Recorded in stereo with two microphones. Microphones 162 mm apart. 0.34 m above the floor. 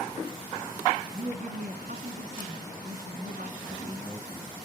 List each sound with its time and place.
1.1 s a woman speaking: 70° right (ahead or behind), 2.5 m
3.6 s a man speaking: centre (ahead or behind), 6.5 m